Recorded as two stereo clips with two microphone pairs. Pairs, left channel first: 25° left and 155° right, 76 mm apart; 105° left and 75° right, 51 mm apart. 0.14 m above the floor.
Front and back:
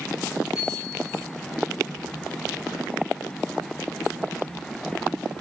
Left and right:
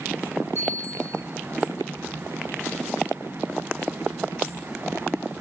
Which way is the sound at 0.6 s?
120° left.